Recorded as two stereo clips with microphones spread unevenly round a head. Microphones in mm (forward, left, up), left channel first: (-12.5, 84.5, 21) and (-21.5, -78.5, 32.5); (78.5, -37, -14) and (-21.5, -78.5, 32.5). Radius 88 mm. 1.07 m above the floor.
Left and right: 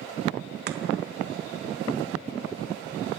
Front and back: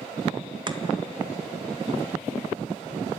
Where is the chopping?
100° right, 1.5 m.